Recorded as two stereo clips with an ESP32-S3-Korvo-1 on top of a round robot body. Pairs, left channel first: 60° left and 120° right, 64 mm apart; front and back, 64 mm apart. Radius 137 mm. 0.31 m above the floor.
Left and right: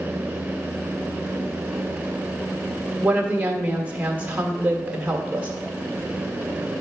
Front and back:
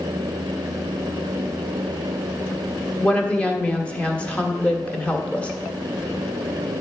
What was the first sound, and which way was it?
A woman speaking, 65° right.